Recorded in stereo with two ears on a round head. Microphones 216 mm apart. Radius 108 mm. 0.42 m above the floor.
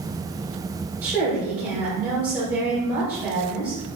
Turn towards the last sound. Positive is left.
turn(degrees=-10)  # may be behind; listen again after turning